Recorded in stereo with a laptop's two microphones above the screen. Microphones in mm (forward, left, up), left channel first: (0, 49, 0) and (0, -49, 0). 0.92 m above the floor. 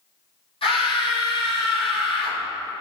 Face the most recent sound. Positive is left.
turn(degrees=70)  # may be behind; listen again after turning